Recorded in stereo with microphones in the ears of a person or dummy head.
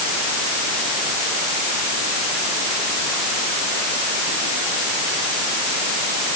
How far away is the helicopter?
No helicopter in this recording.